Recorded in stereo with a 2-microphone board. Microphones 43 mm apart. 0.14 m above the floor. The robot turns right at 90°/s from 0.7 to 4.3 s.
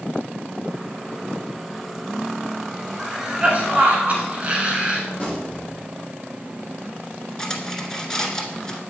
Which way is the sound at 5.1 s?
20° left (ahead or behind).